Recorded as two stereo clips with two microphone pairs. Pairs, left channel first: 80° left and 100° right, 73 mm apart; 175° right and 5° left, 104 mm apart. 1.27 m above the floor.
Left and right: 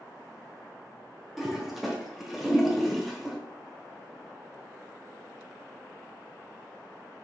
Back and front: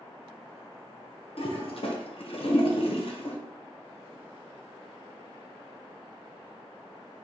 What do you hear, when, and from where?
1.4 s a toilet flushing: 175° left, 0.9 m